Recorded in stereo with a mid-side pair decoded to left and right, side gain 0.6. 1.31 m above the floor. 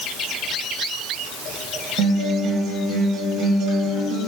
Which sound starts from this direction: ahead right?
A guitar, at 2.0 s.